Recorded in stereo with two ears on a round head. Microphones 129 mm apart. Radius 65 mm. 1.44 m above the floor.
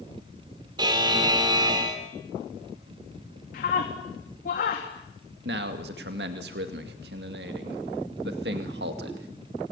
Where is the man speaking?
75° right (ahead or behind), 2.5 m.